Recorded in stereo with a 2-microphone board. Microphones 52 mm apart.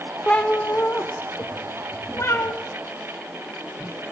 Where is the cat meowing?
20° left (ahead or behind), 0.9 m; by 2.5 s 60° left (ahead or behind), 2 m.